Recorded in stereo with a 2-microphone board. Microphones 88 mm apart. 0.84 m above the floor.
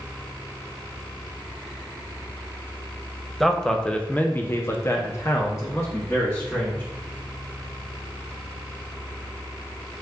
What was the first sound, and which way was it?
A man speaking, centre (ahead or behind).